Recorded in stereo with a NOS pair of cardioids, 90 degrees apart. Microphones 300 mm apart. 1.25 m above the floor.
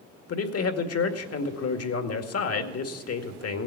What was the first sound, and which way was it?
A man speaking, 55° left.